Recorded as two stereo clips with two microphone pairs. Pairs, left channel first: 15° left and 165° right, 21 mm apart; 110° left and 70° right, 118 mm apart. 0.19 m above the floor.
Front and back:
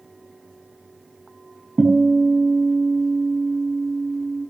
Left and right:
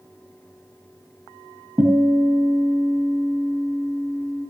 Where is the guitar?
135° right, 5 m.